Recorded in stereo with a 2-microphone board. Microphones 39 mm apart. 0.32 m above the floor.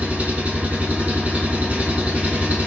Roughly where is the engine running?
Right.